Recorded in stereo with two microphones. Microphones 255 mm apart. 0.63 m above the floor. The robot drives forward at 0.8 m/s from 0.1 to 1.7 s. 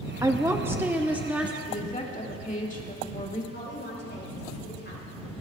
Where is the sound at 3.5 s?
45° left (ahead or behind), 6 m.